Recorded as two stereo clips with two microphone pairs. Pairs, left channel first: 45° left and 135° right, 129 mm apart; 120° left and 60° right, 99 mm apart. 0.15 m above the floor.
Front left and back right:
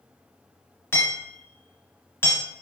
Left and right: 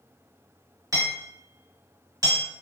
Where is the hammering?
20° right, 1.7 m.